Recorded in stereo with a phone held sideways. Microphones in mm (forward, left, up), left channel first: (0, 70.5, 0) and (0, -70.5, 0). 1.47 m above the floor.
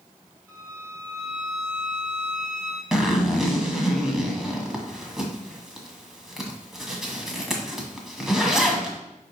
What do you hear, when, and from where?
0.5 s a violin: 20° right (ahead or behind), 3 m
2.9 s a zipper: 5° right (ahead or behind), 1.6 m